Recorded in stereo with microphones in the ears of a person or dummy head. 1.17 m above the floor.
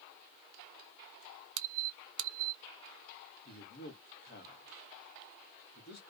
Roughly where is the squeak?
Right.